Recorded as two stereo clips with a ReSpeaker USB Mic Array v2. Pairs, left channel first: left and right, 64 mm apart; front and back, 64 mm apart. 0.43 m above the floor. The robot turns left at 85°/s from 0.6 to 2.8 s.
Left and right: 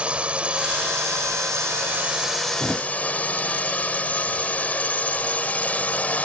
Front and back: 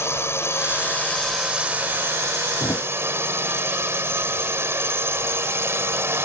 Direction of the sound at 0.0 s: 25° right.